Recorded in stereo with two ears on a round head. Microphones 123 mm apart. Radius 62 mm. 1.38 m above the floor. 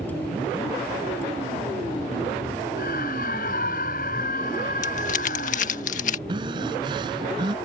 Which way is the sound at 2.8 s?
65° left (ahead or behind).